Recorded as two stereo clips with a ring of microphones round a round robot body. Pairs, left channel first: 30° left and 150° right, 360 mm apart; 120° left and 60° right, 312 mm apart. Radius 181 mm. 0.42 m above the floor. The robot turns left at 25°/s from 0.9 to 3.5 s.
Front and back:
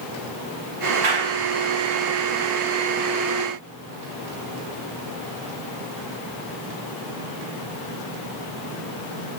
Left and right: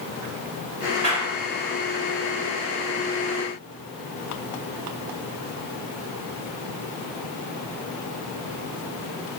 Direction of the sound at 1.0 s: 135° right.